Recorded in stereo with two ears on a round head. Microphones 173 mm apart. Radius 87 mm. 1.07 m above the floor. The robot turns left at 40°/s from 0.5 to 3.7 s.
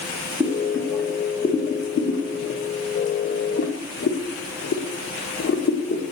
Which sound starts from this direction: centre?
Boiling, at 0.4 s.